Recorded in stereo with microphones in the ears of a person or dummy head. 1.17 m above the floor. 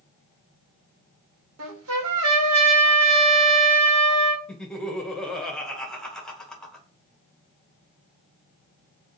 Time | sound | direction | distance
1.6 | a trumpet | 85° right | 1.3 m
4.5 | laughter | 5° left (ahead or behind) | 1.3 m